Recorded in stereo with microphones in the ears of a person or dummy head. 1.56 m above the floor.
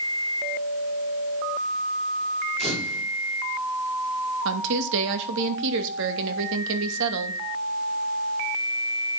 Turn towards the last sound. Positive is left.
turn(degrees=-70)  # may be behind; listen again after turning